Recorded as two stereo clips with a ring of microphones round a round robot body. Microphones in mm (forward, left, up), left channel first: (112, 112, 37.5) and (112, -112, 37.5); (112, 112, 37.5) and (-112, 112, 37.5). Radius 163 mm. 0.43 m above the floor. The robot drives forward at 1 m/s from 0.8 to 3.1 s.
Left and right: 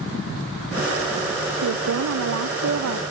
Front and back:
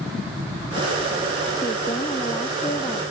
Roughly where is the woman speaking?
Right.